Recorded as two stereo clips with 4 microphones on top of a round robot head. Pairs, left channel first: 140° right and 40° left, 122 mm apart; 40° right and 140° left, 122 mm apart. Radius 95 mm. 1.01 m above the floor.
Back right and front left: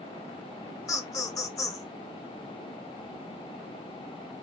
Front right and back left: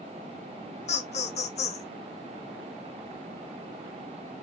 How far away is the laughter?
About 1.0 m.